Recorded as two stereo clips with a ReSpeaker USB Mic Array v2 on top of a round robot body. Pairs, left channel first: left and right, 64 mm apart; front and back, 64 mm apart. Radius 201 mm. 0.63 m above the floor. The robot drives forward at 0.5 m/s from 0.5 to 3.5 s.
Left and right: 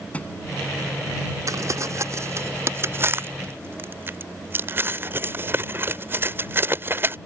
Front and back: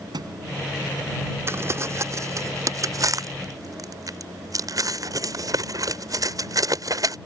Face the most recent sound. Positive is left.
turn(degrees=-145)